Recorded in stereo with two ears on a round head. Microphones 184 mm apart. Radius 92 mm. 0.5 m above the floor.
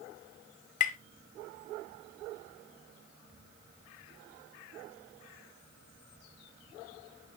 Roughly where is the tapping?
Left.